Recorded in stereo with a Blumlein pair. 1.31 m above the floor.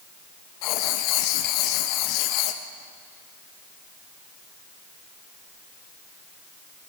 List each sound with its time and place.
0.6 s writing: 40° left, 1.3 m